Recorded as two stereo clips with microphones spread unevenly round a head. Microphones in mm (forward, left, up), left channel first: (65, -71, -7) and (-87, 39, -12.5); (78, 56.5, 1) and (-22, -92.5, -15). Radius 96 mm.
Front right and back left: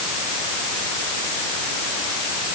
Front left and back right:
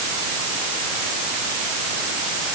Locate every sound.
Only background noise.